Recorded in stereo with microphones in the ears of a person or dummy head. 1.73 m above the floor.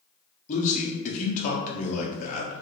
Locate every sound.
0.5 s a man speaking: 45° left (ahead or behind), 0.8 m